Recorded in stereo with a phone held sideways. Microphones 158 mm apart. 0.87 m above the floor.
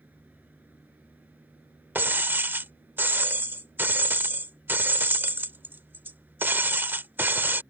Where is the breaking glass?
15° right (ahead or behind).